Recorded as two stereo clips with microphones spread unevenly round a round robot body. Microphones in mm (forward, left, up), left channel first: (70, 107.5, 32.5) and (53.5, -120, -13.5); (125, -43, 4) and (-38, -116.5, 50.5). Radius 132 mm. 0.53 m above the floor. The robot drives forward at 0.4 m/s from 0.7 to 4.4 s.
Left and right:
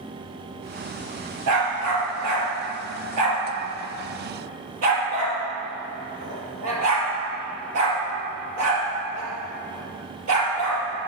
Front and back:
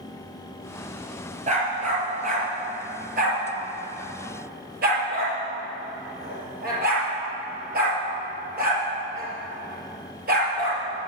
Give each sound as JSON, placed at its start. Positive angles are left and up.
{"t": 1.5, "sound": "a dog barking", "azimuth_deg": -110, "distance_m": 3.5}